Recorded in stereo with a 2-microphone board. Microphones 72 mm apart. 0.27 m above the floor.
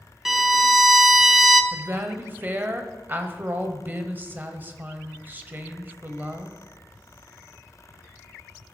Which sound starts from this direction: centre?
A violin, at 0.2 s.